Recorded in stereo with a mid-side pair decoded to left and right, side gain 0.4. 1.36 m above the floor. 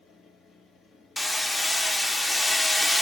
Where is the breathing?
No breathing in this recording.